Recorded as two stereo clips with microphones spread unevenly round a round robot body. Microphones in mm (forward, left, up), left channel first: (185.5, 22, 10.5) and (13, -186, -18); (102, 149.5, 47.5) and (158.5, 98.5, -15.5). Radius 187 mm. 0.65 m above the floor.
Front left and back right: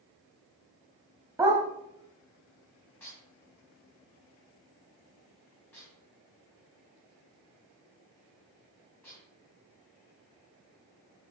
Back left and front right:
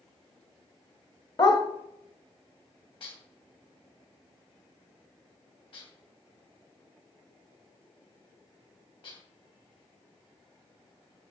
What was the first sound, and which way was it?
A dog barking, 145° left.